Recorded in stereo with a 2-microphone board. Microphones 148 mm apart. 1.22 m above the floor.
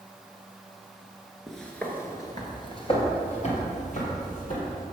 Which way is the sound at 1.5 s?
Centre (ahead or behind).